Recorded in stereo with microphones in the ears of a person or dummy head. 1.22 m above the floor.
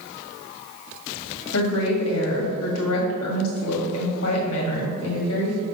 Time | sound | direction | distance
1.5 | a woman speaking | 85° left | 2 m